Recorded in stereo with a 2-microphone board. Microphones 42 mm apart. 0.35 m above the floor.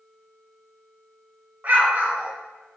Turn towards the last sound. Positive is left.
turn(degrees=-45)  # may be behind; listen again after turning